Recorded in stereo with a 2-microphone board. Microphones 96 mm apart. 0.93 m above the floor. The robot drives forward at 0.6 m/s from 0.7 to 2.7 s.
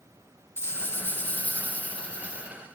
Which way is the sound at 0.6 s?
25° left (ahead or behind).